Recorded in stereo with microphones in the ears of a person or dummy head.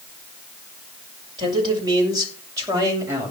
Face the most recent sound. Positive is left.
turn(degrees=-20)  # may be behind; listen again after turning